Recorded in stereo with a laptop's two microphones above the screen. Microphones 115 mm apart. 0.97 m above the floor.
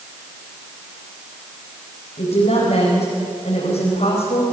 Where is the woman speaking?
75° left (ahead or behind), 5 m.